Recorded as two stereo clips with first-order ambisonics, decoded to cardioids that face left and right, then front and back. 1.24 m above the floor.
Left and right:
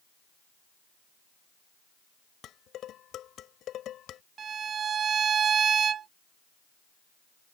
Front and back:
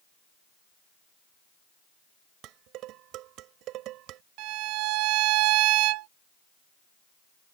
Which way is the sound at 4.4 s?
155° right.